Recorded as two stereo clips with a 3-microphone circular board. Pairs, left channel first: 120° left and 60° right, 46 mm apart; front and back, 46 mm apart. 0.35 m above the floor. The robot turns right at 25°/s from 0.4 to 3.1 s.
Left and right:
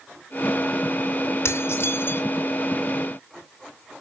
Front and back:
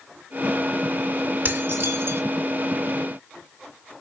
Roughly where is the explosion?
I don't hear an explosion.